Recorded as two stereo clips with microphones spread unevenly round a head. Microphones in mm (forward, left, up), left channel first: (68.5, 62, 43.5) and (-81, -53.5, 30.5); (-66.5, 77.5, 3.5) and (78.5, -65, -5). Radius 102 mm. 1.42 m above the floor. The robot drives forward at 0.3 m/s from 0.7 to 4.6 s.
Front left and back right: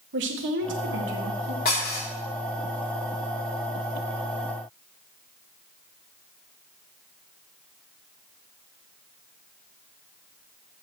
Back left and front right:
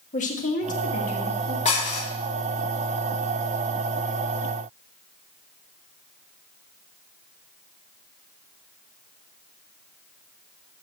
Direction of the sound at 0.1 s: 170° right.